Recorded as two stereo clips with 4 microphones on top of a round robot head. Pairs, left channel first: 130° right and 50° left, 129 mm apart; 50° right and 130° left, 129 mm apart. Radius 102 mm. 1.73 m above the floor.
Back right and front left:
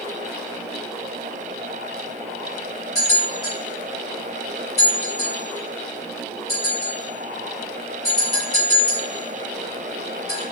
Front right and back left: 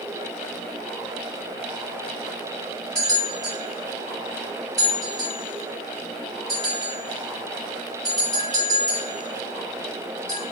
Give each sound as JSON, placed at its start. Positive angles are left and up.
{"t": 3.0, "sound": "a bell", "azimuth_deg": -95, "distance_m": 1.5}